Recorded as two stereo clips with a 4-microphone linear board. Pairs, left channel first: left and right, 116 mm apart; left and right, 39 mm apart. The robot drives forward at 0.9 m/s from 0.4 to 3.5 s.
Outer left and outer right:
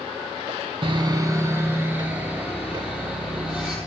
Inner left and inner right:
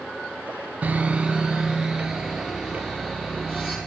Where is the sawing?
50° right (ahead or behind), 0.5 m; by 3.8 s 10° right (ahead or behind), 2.5 m.